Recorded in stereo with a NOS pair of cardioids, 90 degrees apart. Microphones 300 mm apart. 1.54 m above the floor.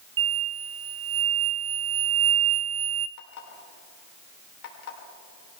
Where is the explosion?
45° right, 0.7 m.